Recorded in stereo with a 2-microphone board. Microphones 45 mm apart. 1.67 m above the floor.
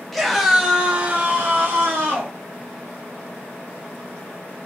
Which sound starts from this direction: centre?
A scream, at 0.1 s.